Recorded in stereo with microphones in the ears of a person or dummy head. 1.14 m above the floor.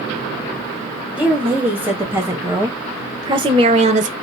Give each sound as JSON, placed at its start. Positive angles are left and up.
{"t": 1.2, "sound": "a woman speaking", "side_deg": -10, "distance_m": 2.0}